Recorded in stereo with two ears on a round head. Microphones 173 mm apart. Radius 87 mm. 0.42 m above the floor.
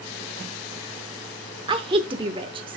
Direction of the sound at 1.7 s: 25° right (ahead or behind).